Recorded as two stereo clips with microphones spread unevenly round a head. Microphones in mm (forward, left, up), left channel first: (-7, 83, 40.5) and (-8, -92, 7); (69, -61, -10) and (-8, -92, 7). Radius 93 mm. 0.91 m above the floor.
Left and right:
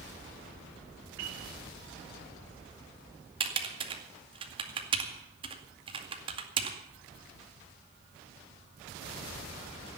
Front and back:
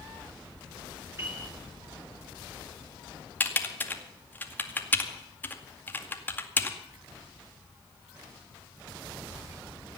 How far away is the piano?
About 7.5 m.